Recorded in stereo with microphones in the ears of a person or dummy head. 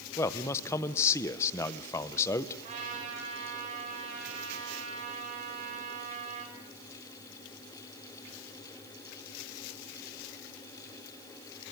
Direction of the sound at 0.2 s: 15° left (ahead or behind).